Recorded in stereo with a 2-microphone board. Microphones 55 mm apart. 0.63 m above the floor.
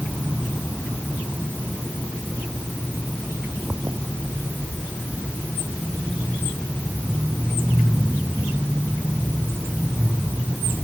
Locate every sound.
Only background noise.